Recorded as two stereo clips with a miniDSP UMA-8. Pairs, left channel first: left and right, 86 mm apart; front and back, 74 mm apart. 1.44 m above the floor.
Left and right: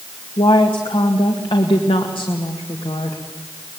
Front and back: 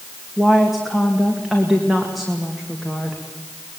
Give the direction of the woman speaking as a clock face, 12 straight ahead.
9 o'clock.